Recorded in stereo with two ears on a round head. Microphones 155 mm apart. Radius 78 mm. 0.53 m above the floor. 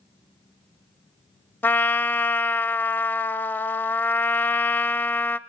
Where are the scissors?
No scissors in this recording.